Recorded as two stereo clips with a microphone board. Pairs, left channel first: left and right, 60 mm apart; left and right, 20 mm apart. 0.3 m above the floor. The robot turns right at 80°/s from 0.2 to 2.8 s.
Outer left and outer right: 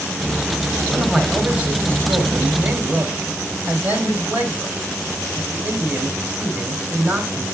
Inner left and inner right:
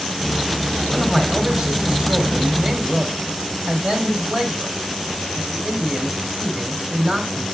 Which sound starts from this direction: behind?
A man speaking, at 0.9 s.